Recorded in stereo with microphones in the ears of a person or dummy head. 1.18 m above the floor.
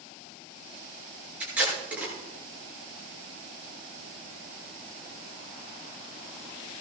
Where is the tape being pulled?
10° right (ahead or behind), 7 m.